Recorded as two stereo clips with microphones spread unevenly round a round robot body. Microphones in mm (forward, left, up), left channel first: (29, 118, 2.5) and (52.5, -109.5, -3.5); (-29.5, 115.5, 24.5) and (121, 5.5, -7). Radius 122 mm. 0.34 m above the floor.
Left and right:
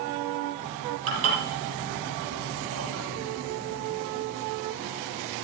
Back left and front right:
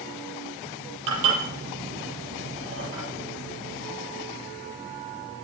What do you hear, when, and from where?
1.1 s dishes clattering: 60° right, 6.5 m